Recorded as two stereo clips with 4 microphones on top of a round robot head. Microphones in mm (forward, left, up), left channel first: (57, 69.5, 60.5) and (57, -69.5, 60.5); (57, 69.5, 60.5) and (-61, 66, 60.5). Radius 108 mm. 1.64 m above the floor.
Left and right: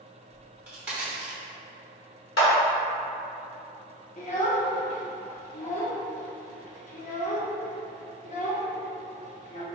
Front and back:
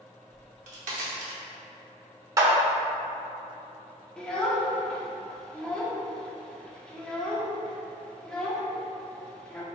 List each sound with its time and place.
0.3 s a crack: 170° right, 0.8 m
2.4 s a clap: 120° left, 0.9 m
4.2 s a child speaking: 80° left, 0.6 m